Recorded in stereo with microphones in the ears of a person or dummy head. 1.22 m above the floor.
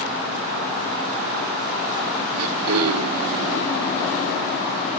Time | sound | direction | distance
2.4 | throat clearing | 75° right (ahead or behind) | 2 m